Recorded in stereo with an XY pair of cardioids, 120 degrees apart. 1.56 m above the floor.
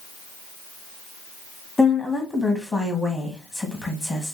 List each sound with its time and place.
1.8 s a woman speaking: 10° left, 1.1 m